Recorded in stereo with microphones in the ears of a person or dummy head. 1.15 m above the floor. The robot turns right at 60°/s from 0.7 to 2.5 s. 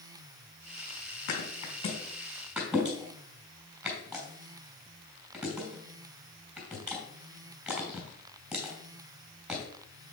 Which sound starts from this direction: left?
A thud, at 1.3 s.